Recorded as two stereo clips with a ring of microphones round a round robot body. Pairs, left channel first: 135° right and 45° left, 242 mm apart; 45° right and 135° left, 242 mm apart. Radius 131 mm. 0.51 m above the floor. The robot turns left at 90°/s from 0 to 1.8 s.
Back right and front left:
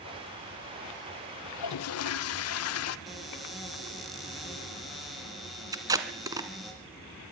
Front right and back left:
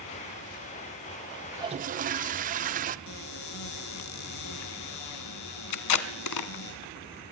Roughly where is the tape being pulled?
Ahead right.